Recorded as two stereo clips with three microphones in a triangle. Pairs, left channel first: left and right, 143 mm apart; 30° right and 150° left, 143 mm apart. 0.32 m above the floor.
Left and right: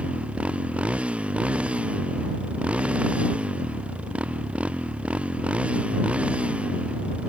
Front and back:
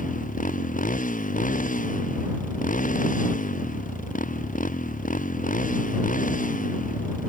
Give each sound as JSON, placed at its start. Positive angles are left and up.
{"t": 0.0, "sound": "a motorcycle", "azimuth_deg": -10}